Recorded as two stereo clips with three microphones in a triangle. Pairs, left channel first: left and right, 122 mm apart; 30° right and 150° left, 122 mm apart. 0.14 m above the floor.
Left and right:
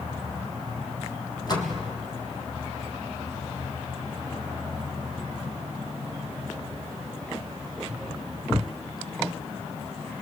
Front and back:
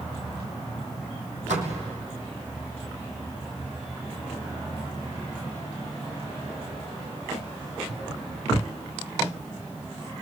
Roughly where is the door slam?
Behind left.